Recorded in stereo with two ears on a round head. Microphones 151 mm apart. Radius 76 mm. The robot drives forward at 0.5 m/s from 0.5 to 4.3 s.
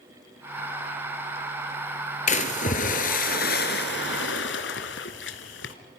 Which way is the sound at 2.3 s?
45° left (ahead or behind).